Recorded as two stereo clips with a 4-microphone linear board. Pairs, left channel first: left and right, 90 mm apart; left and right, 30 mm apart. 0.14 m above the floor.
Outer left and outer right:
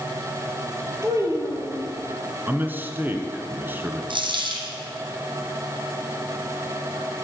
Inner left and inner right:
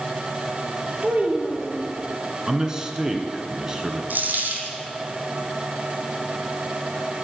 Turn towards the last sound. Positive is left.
turn(degrees=-65)  # may be behind; listen again after turning